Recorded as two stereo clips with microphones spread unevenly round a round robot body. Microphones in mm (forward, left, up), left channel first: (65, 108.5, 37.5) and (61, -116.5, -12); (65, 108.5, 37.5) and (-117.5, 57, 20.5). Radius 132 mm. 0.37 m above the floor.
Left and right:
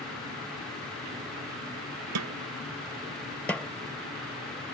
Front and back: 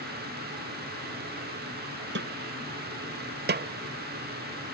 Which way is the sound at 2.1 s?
115° right.